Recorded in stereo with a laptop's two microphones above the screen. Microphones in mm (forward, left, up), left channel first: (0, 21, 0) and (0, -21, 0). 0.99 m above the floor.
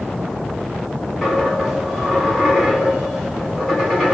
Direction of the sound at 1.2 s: 5° right (ahead or behind).